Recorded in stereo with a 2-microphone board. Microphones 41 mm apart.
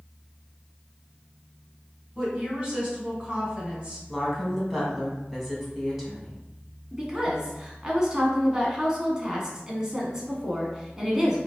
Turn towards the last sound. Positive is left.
turn(degrees=-15)  # may be behind; listen again after turning